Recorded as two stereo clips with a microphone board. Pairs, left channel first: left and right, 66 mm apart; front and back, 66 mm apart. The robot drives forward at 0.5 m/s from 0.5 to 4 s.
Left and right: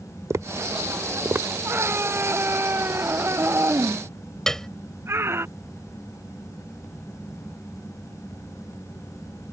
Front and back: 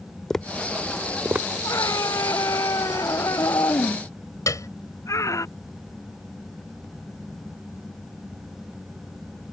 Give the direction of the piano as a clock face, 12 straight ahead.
12 o'clock.